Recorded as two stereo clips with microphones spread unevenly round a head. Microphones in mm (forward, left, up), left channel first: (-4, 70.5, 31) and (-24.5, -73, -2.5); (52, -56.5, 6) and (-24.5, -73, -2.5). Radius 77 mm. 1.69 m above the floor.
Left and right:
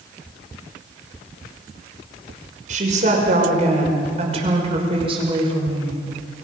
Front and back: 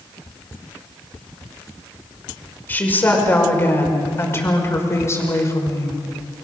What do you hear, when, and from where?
2.7 s a woman speaking: 50° right, 5.5 m; by 6.0 s 35° right, 5.5 m